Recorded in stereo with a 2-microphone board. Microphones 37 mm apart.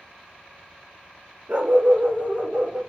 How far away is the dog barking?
About 0.9 m.